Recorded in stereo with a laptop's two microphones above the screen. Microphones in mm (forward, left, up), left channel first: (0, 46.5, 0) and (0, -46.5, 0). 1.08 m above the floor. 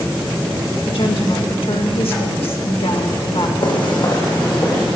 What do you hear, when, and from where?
0.9 s a woman speaking: 80° left, 1.7 m
3.6 s footsteps: 60° left (ahead or behind), 2.5 m; by 4.9 s 40° left (ahead or behind), 3.5 m